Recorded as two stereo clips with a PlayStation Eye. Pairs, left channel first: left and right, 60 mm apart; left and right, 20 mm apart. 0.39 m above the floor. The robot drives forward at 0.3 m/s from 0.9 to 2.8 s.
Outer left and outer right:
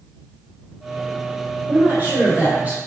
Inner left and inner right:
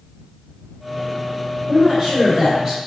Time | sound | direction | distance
1.7 | a woman speaking | 35° right (ahead or behind) | 1.8 m